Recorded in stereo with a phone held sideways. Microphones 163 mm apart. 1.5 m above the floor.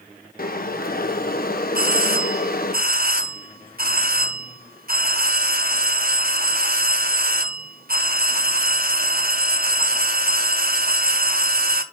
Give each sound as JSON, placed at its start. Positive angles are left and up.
{"t": 0.4, "sound": "boiling", "side_deg": 65, "distance_m": 1.0}
{"t": 1.8, "sound": "a doorbell", "side_deg": -65, "distance_m": 0.9}